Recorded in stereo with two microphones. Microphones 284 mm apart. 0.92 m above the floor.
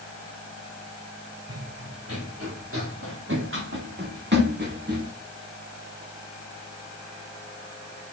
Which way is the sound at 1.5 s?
55° right (ahead or behind).